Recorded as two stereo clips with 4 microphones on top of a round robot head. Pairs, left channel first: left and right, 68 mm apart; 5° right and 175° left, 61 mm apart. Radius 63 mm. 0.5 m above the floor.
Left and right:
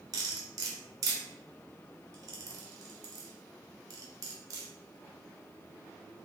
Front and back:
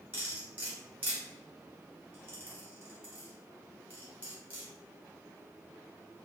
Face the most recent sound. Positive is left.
turn(degrees=-115)